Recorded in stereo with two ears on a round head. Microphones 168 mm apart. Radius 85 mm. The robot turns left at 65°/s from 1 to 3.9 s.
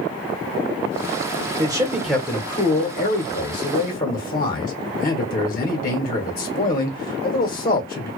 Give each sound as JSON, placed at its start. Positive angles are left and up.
{"t": 1.6, "sound": "a man speaking", "azimuth_deg": -150, "distance_m": 0.9}